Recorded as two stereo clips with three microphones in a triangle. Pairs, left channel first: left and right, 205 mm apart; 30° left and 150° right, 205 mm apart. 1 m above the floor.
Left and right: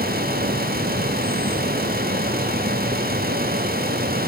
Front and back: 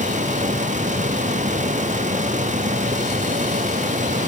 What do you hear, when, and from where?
Only background noise.